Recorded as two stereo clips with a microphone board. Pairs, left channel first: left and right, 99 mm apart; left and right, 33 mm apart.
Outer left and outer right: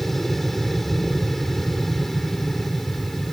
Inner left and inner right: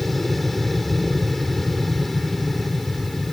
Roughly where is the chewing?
I don't hear chewing.